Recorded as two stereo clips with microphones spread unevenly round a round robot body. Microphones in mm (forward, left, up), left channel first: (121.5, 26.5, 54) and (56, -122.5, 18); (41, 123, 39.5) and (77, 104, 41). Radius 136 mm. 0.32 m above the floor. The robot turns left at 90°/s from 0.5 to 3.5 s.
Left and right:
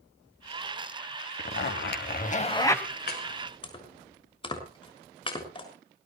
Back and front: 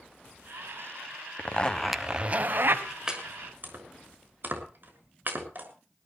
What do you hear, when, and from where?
1.4 s a zipper: 110° left, 1.8 m; by 2.9 s 25° right, 1.8 m
3.1 s chopping: 45° left, 6.5 m; by 5.7 s 5° left, 6.5 m